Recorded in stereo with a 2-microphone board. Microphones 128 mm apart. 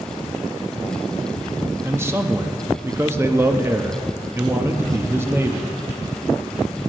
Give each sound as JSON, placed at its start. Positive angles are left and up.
{"t": 1.8, "sound": "a man speaking", "side_deg": -20, "distance_m": 0.7}